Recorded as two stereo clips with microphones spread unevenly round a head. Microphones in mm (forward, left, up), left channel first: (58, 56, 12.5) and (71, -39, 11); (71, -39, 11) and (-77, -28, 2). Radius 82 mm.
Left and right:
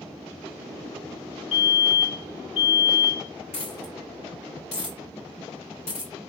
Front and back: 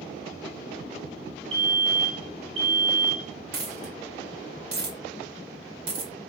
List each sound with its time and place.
1.5 s a fire alarm: 125° left, 2.5 m
3.5 s a dropped coin: 140° left, 2 m